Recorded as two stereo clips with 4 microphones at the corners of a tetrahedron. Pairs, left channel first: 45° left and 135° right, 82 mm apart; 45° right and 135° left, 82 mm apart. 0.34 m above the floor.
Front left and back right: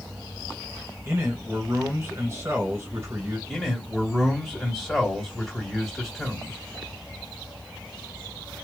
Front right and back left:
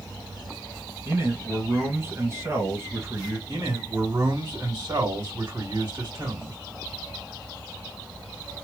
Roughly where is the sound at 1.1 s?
Behind.